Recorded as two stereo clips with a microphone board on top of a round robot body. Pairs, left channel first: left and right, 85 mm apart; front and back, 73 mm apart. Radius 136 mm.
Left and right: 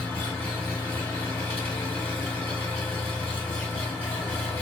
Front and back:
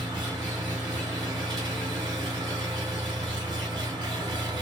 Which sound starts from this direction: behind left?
An engine running, at 0.0 s.